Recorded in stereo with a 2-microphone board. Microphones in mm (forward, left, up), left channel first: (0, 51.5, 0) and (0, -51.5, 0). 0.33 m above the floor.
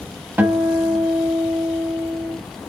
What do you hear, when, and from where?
0.4 s a guitar: 20° right (ahead or behind), 1.1 m